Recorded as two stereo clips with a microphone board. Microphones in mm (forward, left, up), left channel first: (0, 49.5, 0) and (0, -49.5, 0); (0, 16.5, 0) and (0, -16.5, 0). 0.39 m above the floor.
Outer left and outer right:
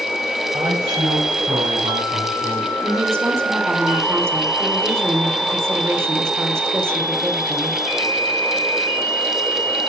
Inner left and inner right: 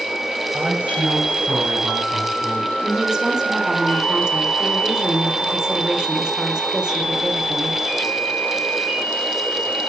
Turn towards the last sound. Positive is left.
turn(degrees=-25)  # may be behind; listen again after turning